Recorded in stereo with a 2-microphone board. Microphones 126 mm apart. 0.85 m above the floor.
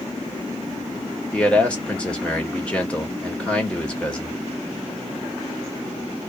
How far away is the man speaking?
About 1.3 m.